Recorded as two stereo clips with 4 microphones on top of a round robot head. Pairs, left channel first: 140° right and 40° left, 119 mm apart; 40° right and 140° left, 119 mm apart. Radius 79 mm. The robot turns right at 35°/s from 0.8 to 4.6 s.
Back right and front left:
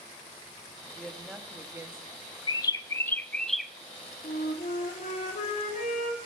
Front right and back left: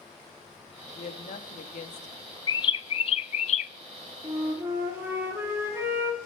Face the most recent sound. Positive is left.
turn(degrees=-145)